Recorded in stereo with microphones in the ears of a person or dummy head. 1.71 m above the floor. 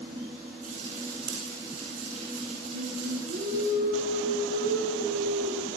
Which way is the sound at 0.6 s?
40° right (ahead or behind).